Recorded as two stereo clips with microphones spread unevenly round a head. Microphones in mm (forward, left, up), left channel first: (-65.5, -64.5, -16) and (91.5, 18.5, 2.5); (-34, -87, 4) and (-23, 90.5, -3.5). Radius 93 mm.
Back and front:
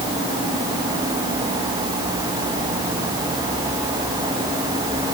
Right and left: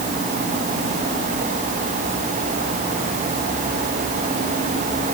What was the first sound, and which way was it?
Only background noise.